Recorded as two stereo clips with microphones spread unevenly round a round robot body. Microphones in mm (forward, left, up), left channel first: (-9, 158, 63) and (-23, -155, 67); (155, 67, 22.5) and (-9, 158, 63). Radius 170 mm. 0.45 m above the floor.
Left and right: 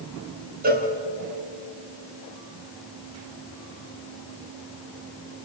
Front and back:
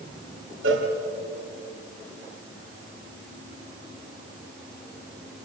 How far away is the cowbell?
About 3 m.